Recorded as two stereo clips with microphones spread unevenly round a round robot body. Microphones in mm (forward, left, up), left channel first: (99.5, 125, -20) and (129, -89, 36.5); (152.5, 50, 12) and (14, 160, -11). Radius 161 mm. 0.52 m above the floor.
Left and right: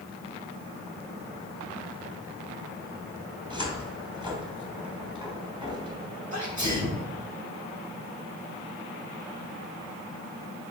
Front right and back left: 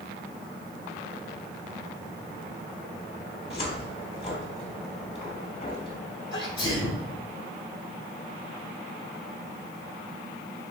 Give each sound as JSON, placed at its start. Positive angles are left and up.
{"t": 3.5, "sound": "a cupboard door", "azimuth_deg": -5, "distance_m": 2.5}
{"t": 6.3, "sound": "a sneeze", "azimuth_deg": -25, "distance_m": 4.0}